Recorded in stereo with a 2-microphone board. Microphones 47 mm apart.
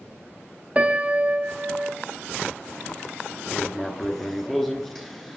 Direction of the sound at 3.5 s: 5° left (ahead or behind).